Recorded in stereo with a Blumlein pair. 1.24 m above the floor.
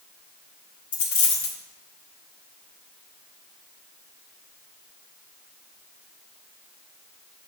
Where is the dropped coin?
55° left, 1.6 m.